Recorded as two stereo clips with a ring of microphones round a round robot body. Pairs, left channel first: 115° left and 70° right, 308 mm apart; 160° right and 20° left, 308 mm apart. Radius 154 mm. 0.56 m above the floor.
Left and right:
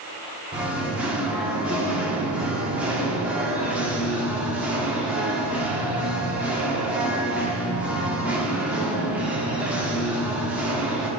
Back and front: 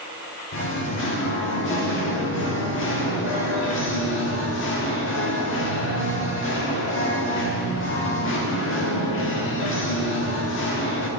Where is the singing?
150° right, 1.5 m.